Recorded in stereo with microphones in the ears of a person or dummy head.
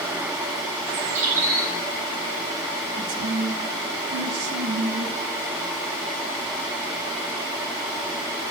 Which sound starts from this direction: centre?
A bird, at 0.8 s.